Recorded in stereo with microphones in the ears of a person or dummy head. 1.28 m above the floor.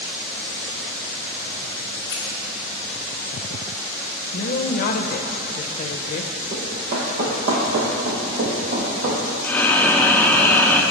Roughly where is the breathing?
Centre.